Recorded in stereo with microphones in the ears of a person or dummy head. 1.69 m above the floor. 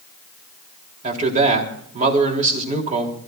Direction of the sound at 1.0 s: 40° right (ahead or behind).